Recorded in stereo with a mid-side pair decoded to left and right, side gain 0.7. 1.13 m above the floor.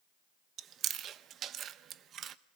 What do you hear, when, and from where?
0.6 s chewing: 45° right, 0.8 m